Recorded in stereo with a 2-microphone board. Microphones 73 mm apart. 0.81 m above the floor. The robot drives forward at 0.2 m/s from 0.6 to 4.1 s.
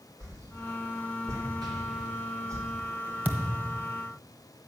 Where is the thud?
25° right (ahead or behind), 1.3 m; by 3.9 s 30° right (ahead or behind), 1.2 m.